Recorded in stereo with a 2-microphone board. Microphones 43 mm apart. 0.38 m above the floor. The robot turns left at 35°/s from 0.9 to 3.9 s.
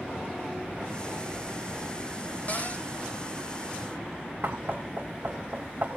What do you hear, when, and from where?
2.5 s a cupboard door: 40° left (ahead or behind), 2 m; by 2.9 s 30° left (ahead or behind), 2 m
4.4 s knocking: 50° right (ahead or behind), 1.0 m